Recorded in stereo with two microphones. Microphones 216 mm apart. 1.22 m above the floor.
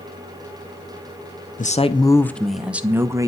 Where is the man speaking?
40° left (ahead or behind), 0.6 m; by 3.3 s 15° right (ahead or behind), 1.2 m.